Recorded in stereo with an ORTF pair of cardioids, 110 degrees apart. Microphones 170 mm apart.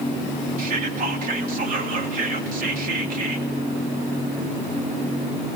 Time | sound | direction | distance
0.6 | whispering | 55° right | 3 m